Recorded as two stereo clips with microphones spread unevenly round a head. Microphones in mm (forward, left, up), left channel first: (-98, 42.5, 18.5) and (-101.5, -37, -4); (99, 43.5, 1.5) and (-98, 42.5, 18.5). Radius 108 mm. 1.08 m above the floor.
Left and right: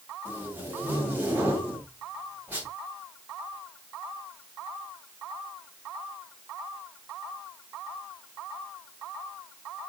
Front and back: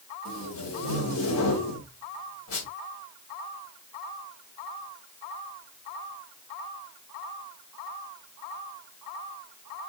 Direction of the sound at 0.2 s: 15° right.